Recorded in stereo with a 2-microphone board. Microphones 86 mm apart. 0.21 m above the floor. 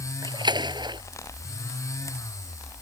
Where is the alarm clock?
No alarm clock in this recording.